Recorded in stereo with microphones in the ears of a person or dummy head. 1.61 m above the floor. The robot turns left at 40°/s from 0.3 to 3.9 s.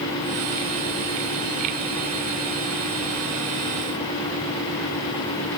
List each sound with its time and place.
Only background noise.